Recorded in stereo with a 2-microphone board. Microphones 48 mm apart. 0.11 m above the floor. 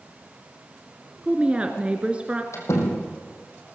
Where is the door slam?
70° left (ahead or behind), 4 m.